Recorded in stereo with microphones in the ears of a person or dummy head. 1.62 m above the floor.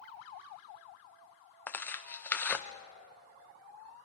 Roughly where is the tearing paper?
Centre.